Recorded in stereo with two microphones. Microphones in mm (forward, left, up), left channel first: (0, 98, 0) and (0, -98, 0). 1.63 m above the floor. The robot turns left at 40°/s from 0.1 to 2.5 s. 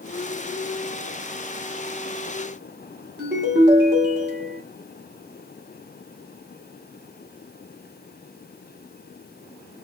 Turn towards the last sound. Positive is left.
turn(degrees=-60)  # may be behind; listen again after turning